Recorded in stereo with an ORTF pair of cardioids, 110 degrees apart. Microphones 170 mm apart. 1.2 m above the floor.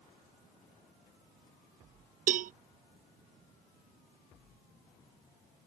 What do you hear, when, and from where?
2.3 s a cowbell: 50° right